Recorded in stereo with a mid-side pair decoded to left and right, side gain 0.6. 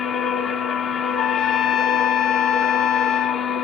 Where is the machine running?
45° left, 0.9 m.